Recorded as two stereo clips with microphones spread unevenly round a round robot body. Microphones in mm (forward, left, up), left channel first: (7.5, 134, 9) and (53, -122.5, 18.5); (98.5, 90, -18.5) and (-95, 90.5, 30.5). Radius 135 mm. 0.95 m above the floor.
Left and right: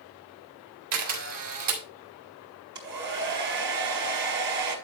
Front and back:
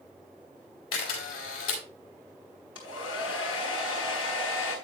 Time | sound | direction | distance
0.9 | a camera shutter | 70° right | 4 m
2.8 | a hair dryer | 95° right | 4.5 m